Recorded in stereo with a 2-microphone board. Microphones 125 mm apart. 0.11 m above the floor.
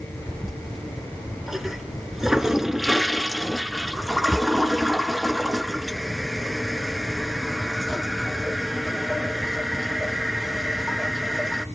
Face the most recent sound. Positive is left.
turn(degrees=-5)  # may be behind; listen again after turning